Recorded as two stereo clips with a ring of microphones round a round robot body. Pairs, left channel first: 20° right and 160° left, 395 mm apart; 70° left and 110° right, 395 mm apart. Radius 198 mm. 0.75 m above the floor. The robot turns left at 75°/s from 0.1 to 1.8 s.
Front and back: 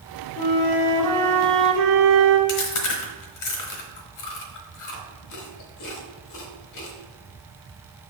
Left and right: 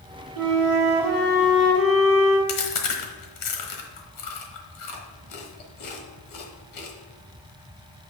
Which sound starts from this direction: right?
A flute, at 0.4 s.